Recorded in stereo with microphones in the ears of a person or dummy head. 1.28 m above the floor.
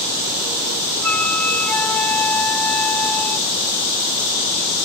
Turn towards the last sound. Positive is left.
turn(degrees=5)  # may be behind; listen again after turning